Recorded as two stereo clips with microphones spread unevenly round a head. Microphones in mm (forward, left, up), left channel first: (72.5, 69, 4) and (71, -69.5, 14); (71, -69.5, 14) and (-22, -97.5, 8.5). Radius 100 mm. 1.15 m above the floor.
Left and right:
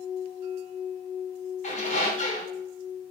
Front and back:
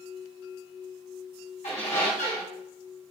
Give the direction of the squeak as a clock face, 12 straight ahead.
10 o'clock.